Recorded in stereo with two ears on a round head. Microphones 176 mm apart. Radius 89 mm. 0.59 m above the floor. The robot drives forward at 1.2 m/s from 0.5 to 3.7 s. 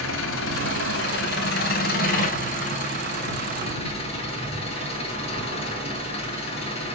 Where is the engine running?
75° left (ahead or behind), 3 m; by 6.9 s 35° left (ahead or behind), 5 m.